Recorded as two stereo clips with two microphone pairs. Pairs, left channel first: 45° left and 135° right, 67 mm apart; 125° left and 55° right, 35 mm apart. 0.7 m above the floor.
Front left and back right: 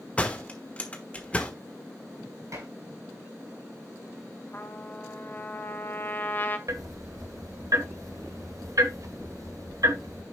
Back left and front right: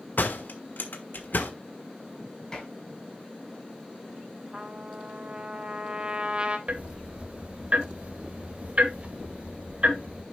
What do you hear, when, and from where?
0.2 s a door slam: 115° left, 1.3 m
2.5 s dishes clattering: 170° right, 5.5 m
4.5 s a trumpet: 5° right, 1.0 m
6.7 s ticking: 100° right, 1.2 m